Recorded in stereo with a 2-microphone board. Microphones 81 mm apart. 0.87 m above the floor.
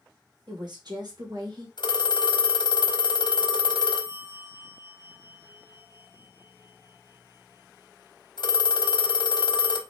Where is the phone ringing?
65° left (ahead or behind), 1.0 m.